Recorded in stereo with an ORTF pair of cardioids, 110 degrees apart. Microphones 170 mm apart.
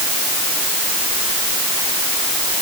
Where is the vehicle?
I don't hear a vehicle.